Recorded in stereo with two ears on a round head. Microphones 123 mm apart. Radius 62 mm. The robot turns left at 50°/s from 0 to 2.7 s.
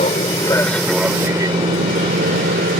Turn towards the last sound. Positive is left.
turn(degrees=-70)  # may be behind; listen again after turning